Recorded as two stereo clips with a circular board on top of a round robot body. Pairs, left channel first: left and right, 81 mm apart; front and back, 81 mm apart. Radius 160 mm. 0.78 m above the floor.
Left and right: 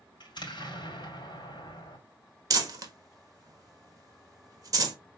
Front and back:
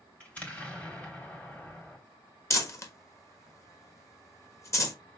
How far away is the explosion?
About 2.5 m.